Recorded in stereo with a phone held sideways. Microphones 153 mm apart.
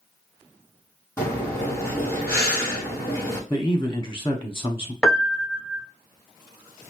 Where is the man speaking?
20° left (ahead or behind), 0.8 m.